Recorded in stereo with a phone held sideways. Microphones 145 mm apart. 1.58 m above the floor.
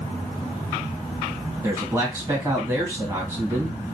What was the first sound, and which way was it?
A man speaking, 20° right (ahead or behind).